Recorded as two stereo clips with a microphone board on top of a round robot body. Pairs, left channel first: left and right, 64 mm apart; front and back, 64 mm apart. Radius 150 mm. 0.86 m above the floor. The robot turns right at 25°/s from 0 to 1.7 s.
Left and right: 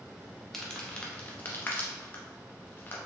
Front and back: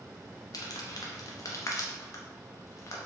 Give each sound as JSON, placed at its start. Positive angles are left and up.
{"t": 0.5, "sound": "crumpling", "azimuth_deg": 5, "distance_m": 0.7}